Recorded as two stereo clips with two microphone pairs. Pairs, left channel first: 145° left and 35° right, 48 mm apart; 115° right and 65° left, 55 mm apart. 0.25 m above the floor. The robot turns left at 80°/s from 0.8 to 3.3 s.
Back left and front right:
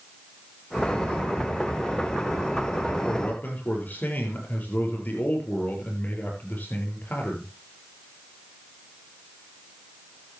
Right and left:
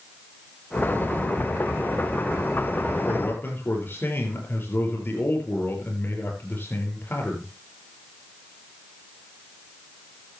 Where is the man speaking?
145° right, 6 m; by 7.5 s 165° right, 6 m.